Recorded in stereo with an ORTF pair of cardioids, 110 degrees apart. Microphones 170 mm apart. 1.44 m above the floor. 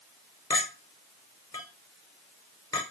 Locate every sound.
0.5 s a clink: 20° left, 0.9 m